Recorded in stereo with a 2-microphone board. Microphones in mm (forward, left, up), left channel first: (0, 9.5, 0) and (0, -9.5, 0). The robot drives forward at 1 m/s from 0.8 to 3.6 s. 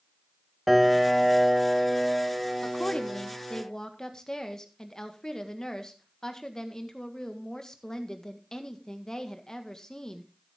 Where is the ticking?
I don't hear ticking.